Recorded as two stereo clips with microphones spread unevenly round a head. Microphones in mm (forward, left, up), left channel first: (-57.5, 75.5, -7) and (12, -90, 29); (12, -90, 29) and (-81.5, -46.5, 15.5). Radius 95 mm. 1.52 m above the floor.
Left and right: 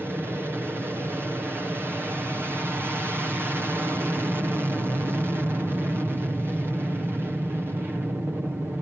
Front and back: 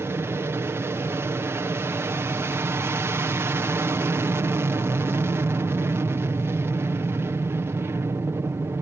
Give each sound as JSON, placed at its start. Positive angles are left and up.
{"t": 0.0, "sound": "an aircraft", "azimuth_deg": -150}